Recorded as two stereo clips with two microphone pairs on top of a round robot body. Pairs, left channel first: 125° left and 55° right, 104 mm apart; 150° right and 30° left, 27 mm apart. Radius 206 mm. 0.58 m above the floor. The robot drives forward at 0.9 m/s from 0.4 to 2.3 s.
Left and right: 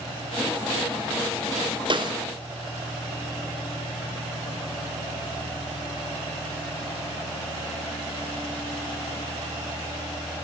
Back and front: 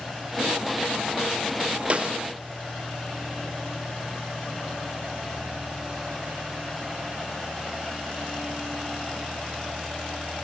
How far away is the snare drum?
About 1.6 m.